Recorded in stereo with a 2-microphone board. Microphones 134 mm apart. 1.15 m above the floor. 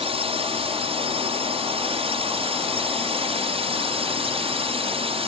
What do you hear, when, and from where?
0.0 s a drone: 45° right (ahead or behind)